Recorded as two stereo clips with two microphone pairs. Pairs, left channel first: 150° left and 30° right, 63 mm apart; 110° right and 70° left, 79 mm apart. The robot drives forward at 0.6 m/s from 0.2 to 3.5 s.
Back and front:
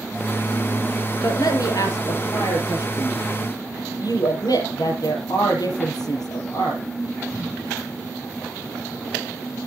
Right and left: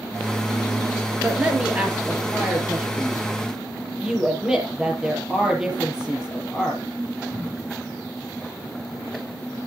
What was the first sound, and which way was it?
A man speaking, 140° left.